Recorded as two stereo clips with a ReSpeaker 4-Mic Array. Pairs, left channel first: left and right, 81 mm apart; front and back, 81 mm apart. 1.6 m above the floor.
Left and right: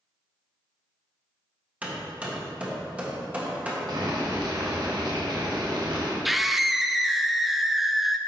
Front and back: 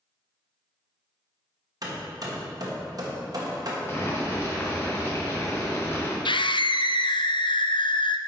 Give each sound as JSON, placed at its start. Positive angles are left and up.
{"t": 1.8, "sound": "hammering", "azimuth_deg": -160, "distance_m": 1.3}
{"t": 3.9, "sound": "boiling", "azimuth_deg": -60, "distance_m": 1.4}
{"t": 6.2, "sound": "a scream", "azimuth_deg": 0, "distance_m": 0.5}